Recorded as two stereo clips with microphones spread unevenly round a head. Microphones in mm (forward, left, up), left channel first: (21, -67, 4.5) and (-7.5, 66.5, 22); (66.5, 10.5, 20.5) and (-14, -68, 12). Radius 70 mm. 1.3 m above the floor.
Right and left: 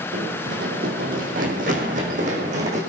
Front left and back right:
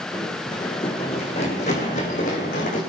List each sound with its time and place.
0.1 s running footsteps: 115° left, 3 m; by 2.8 s 65° left, 4.5 m